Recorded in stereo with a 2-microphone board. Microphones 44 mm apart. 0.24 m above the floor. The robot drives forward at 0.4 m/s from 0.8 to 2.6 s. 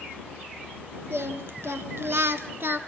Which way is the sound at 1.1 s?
70° right (ahead or behind).